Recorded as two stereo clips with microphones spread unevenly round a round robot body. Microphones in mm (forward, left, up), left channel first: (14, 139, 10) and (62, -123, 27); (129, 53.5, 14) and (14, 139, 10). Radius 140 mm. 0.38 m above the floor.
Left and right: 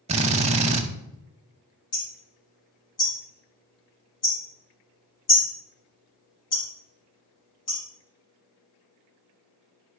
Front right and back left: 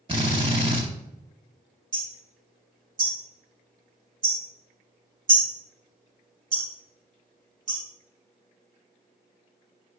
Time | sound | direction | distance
0.1 | a drill | 150° right | 0.7 m
1.9 | hammering | 125° left | 4 m